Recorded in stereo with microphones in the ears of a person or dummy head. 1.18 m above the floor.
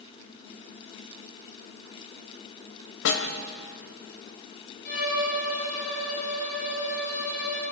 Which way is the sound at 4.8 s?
50° left (ahead or behind).